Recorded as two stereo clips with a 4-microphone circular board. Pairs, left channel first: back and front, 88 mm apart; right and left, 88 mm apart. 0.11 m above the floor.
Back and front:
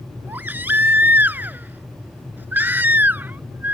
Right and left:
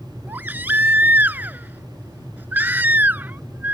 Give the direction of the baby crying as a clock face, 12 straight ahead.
11 o'clock.